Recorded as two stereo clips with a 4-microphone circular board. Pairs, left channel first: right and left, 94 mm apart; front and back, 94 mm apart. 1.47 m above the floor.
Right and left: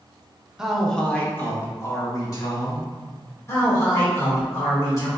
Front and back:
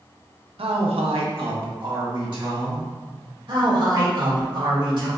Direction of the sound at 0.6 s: 170° left.